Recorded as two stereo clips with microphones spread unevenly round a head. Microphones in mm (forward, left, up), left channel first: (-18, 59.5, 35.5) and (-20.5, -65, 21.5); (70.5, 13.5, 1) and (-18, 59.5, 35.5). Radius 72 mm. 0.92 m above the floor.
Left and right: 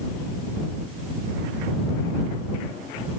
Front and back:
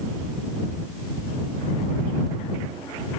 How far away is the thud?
No thud in this recording.